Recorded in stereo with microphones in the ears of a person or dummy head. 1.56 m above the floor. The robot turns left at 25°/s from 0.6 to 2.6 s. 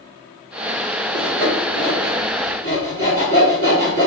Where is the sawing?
60° right (ahead or behind), 2.0 m; by 4.1 s 40° right (ahead or behind), 2.0 m.